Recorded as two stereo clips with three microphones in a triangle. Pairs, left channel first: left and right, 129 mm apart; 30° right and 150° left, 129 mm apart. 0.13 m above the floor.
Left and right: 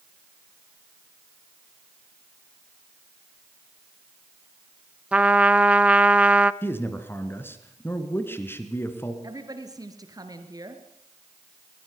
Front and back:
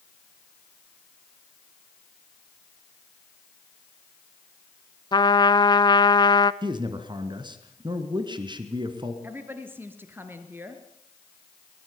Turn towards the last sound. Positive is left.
turn(degrees=-140)